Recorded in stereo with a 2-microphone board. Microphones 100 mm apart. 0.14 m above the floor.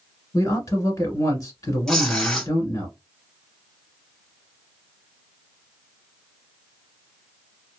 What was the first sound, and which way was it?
A man speaking, 35° left (ahead or behind).